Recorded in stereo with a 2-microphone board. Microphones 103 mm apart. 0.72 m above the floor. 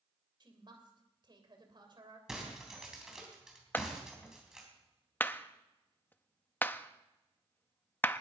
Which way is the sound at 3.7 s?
20° left (ahead or behind).